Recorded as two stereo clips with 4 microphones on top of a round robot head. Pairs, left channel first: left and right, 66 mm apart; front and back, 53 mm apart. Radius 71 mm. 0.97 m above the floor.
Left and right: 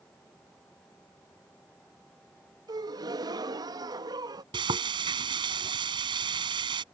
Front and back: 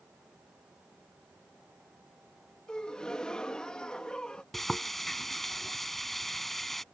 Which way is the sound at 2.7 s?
80° right.